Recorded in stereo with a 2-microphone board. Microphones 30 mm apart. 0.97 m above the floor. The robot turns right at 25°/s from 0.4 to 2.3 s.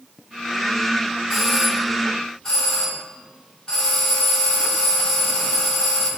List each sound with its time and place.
1.3 s a doorbell: 5° right (ahead or behind), 1.8 m; by 6.1 s 15° left (ahead or behind), 1.8 m